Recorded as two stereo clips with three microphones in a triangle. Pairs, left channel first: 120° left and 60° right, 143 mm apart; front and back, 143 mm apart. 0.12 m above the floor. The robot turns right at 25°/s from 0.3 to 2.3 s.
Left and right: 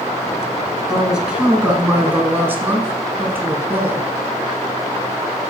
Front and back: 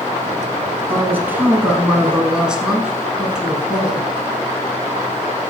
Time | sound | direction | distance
0.9 | a woman speaking | 145° right | 1.2 m